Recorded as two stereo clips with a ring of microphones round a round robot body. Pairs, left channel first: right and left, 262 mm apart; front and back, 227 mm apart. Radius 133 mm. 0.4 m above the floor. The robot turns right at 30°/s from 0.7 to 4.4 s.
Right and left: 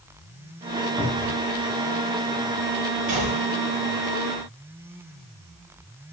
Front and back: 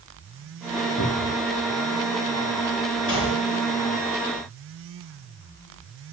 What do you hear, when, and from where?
1.0 s a cupboard door: 15° right, 7.5 m; by 1.4 s straight ahead, 7.5 m
3.1 s a gunshot: 30° left, 8.5 m; by 3.5 s 40° left, 8.5 m